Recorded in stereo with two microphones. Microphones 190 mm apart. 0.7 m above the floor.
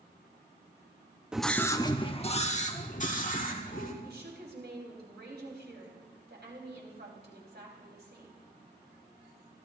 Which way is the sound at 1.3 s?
5° right (ahead or behind).